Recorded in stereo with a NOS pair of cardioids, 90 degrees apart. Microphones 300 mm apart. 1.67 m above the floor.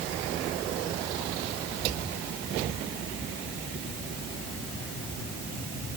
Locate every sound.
Only background noise.